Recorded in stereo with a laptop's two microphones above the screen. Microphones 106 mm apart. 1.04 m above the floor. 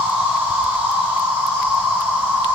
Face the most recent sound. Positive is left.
turn(degrees=-20)  # may be behind; listen again after turning